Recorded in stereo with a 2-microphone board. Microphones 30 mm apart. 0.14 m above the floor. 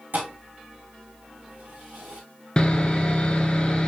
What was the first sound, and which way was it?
A thud, 75° right (ahead or behind).